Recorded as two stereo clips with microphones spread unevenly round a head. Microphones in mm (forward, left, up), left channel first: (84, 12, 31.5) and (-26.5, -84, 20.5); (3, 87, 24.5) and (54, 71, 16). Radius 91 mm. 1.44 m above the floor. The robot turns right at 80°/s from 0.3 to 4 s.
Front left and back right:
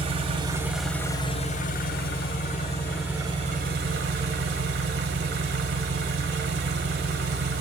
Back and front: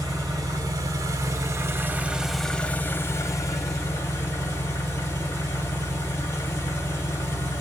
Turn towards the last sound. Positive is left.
turn(degrees=-150)